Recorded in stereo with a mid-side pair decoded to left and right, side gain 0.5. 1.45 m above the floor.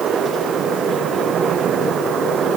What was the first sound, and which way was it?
Only background noise.